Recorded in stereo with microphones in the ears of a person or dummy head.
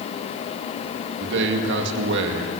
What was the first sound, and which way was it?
A man speaking, 70° right (ahead or behind).